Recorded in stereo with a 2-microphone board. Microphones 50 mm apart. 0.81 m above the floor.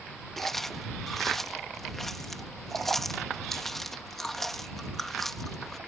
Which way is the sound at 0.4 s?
5° left (ahead or behind).